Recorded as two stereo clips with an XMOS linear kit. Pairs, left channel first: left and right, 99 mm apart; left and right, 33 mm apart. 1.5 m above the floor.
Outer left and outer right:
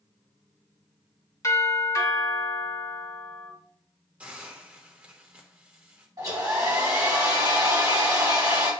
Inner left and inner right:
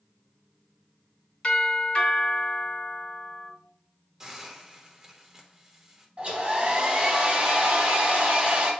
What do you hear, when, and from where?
1.4 s a doorbell: 35° left (ahead or behind), 3.5 m
4.2 s a hiss: 15° right (ahead or behind), 1.2 m
6.2 s a hair dryer: 35° right (ahead or behind), 2 m